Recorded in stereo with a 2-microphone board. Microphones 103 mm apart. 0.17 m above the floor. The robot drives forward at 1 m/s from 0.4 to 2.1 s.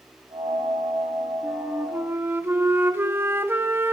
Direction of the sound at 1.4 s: 15° right (ahead or behind).